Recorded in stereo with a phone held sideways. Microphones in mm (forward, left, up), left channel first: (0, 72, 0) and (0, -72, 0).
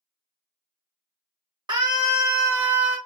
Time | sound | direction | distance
1.7 | a scream | 30° right (ahead or behind) | 1.5 m